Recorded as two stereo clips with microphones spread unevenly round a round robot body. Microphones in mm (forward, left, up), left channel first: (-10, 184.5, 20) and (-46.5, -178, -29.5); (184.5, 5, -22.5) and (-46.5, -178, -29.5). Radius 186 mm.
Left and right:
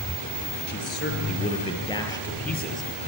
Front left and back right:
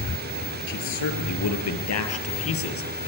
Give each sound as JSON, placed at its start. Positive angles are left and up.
{"t": 0.7, "sound": "a man speaking", "azimuth_deg": 20, "distance_m": 5.0}